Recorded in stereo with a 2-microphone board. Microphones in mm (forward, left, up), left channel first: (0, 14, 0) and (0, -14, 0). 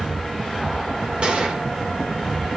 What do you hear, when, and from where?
1.2 s a gunshot: 40° right (ahead or behind), 2.5 m